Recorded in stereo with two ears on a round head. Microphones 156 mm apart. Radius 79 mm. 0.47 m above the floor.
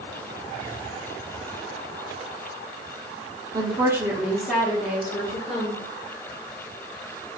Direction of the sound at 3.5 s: 25° right (ahead or behind).